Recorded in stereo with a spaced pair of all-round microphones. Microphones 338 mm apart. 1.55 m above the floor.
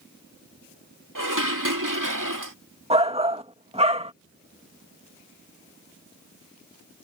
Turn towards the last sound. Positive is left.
turn(degrees=-20)  # may be behind; listen again after turning